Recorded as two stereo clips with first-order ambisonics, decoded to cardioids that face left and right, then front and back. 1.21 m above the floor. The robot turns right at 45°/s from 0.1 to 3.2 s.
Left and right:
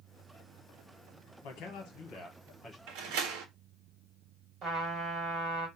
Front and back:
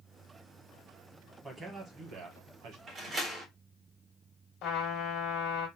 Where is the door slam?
120° right, 1.1 m; by 3.5 s 105° right, 1.1 m.